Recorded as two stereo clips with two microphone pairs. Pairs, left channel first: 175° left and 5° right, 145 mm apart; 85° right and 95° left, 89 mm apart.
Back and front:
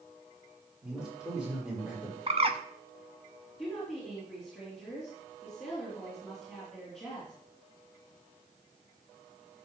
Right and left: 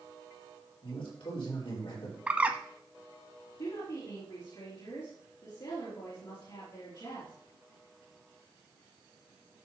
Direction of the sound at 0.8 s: 90° right.